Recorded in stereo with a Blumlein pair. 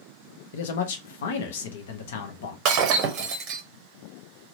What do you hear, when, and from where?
0.5 s a man speaking: 55° left, 0.7 m
2.6 s breaking glass: 40° right, 0.7 m